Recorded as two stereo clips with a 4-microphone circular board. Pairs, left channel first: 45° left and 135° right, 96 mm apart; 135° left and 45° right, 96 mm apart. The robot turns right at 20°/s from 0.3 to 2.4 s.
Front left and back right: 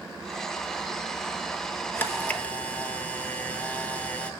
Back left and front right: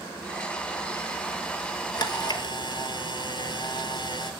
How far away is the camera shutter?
About 0.8 m.